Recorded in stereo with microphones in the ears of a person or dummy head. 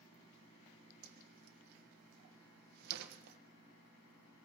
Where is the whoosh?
65° right (ahead or behind), 1.3 m.